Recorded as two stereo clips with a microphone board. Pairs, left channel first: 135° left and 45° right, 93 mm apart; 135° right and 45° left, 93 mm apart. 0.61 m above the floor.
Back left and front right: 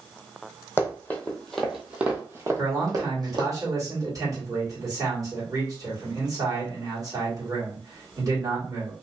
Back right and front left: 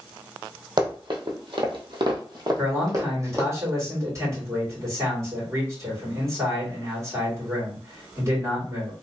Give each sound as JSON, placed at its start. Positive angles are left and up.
{"t": 0.8, "sound": "running footsteps", "azimuth_deg": 75, "distance_m": 1.3}
{"t": 2.6, "sound": "a man speaking", "azimuth_deg": -5, "distance_m": 2.0}